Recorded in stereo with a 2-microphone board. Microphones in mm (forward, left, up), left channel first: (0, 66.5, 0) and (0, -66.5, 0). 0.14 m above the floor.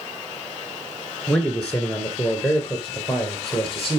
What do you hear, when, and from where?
1.3 s a man speaking: 10° left (ahead or behind), 1.7 m; by 4.0 s centre (ahead or behind), 3.5 m